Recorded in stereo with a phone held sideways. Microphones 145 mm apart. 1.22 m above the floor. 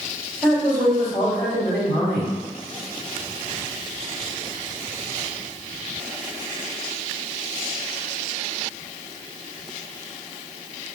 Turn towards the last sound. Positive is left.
turn(degrees=5)  # may be behind; listen again after turning